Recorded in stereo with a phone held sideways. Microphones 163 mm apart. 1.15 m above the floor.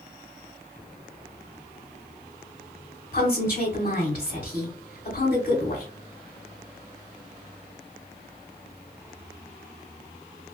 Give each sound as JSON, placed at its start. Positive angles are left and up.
{"t": 3.1, "sound": "a woman speaking", "side_deg": 50, "distance_m": 1.0}